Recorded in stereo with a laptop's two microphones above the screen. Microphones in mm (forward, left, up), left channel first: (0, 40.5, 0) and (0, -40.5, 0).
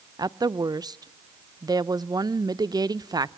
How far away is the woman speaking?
About 0.5 m.